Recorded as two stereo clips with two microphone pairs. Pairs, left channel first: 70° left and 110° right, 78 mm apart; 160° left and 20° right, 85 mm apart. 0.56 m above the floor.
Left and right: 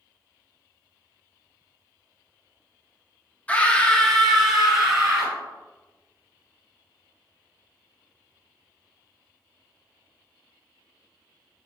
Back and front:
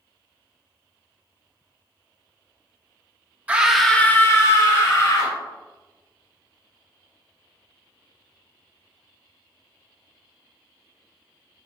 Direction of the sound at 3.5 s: 25° left.